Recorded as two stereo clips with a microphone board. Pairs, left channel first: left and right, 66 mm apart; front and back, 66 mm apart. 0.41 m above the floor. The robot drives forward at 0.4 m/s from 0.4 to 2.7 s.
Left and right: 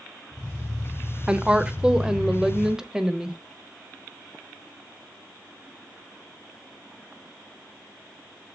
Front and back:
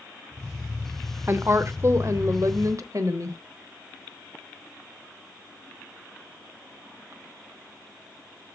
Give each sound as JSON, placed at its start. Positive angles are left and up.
{"t": 1.3, "sound": "a woman speaking", "azimuth_deg": -155, "distance_m": 0.9}